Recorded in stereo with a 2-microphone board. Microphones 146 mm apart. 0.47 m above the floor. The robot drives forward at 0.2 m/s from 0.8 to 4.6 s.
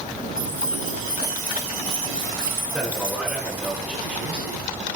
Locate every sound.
0.4 s keys jangling: 75° left (ahead or behind), 8.5 m; by 3.7 s 70° left (ahead or behind), 8.5 m
2.7 s a man speaking: 5° right (ahead or behind), 7 m